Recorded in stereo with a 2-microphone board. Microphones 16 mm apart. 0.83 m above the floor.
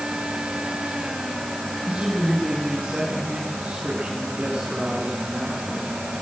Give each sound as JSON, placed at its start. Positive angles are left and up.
{"t": 1.9, "sound": "a woman speaking", "side_deg": -85, "distance_m": 7.5}